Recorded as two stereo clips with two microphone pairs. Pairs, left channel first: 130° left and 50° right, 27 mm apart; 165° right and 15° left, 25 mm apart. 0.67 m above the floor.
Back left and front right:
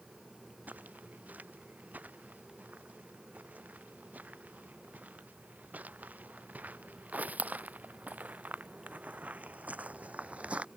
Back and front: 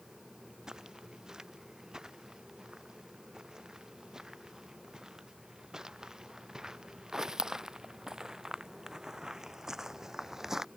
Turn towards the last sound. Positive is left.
turn(degrees=-55)